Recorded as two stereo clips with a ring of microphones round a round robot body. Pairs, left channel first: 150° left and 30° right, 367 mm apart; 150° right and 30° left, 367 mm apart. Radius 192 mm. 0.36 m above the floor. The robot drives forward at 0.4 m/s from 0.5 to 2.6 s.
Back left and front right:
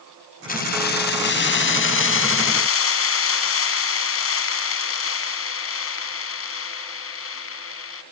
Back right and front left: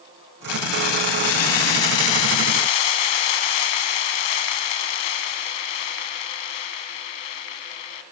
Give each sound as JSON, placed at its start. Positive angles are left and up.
{"t": 0.5, "sound": "keys jangling", "azimuth_deg": -145, "distance_m": 1.9}